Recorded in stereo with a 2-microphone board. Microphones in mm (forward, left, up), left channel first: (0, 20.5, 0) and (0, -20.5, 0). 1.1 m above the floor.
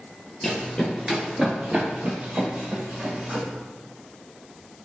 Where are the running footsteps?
10° left (ahead or behind), 1.3 m; by 3.4 s 45° right (ahead or behind), 3 m.